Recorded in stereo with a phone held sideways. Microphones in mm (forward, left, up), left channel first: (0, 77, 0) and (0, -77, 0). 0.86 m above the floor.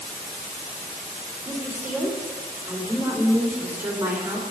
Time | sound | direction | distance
1.4 | a woman speaking | 15° right (ahead or behind) | 3 m